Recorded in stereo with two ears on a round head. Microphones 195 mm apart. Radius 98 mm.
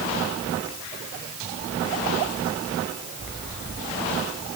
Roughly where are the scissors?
I don't hear scissors.